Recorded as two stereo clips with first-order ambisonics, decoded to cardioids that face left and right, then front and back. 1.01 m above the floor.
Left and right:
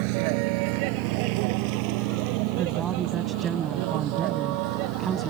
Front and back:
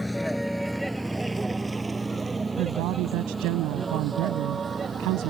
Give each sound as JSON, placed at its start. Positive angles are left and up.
{"t": 0.0, "sound": "a vehicle", "azimuth_deg": -85}
{"t": 2.6, "sound": "a woman speaking", "azimuth_deg": -155}